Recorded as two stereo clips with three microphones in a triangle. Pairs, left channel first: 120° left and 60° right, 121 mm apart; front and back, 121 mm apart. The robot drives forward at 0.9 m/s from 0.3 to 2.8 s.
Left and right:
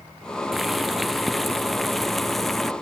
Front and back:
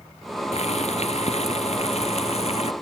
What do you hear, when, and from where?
0.5 s boiling: 30° left